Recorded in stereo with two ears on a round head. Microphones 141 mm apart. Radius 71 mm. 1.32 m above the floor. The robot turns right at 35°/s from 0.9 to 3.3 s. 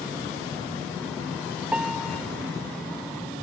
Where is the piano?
10° right (ahead or behind); by 2.2 s 10° left (ahead or behind).